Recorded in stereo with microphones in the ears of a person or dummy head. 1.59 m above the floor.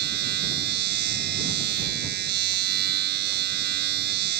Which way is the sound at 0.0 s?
55° right (ahead or behind).